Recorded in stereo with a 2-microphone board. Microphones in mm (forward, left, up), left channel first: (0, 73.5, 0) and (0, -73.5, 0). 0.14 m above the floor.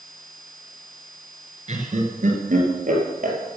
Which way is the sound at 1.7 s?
50° right (ahead or behind).